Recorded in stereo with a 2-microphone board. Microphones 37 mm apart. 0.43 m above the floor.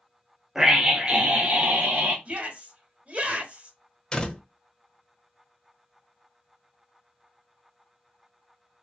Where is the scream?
10° right (ahead or behind), 0.9 m; by 2.1 s 55° right (ahead or behind), 1.2 m.